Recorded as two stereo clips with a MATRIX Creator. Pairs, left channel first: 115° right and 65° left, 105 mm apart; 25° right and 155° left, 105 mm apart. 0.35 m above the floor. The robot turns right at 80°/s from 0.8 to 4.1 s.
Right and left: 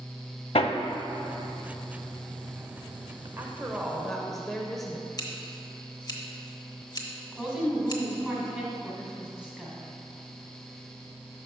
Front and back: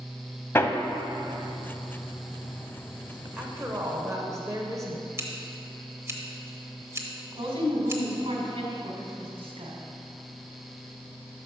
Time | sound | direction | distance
0.6 | hammering | 90° right | 0.5 m
3.4 | a woman speaking | 100° left | 0.9 m
5.2 | scissors | 150° right | 1.0 m
7.3 | a woman speaking | 150° left | 2.0 m